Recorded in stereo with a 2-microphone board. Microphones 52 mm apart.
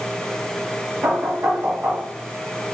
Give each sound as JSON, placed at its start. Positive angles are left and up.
{"t": 1.0, "sound": "knocking", "side_deg": -55, "distance_m": 1.3}